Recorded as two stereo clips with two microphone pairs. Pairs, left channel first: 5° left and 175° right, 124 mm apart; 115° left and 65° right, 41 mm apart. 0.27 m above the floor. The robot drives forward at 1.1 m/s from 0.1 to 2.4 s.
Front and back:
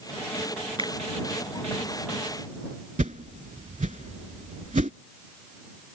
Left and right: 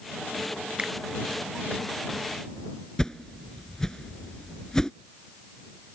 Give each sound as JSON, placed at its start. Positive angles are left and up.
{"t": 0.8, "sound": "a finger snap", "azimuth_deg": -130}
{"t": 3.0, "sound": "a whoosh", "azimuth_deg": -170}